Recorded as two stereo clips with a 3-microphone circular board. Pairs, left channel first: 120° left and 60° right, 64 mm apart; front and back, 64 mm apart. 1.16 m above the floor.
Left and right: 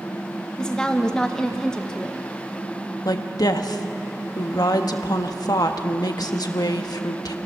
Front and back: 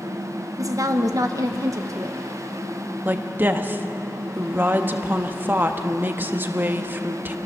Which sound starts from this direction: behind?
A woman speaking, at 0.6 s.